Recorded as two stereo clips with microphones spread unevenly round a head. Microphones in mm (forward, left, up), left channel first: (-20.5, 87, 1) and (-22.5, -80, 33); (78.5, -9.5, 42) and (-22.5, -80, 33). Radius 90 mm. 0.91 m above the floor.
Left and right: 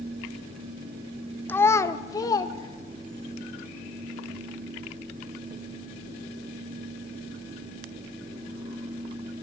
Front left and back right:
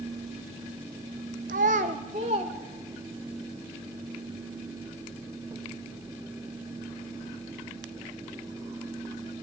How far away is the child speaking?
About 0.5 m.